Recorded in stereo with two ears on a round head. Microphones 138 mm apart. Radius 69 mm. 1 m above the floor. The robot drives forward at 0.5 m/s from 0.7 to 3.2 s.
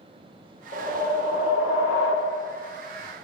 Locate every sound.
0.7 s a whoosh: 65° left (ahead or behind), 1.2 m